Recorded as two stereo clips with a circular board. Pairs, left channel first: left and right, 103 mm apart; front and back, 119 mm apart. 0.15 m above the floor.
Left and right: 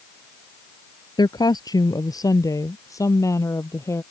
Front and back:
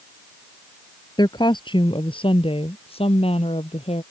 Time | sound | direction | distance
1.2 | a woman speaking | 50° left | ?